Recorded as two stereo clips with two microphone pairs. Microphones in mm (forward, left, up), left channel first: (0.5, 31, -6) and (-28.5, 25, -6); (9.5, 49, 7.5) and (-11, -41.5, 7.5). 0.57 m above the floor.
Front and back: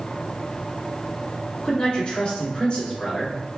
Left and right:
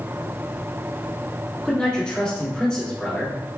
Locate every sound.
1.6 s a man speaking: straight ahead, 1.6 m